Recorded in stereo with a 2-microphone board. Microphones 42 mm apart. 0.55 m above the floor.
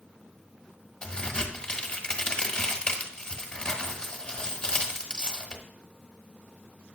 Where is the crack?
25° left (ahead or behind), 1.2 m.